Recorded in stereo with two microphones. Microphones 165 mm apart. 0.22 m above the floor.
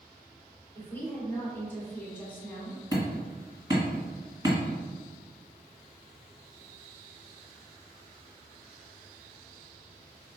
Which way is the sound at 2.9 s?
25° right (ahead or behind).